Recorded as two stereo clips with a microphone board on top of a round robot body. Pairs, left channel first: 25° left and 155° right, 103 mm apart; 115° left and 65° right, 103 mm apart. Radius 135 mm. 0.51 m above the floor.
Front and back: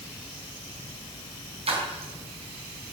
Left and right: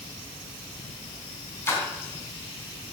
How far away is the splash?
About 3.5 m.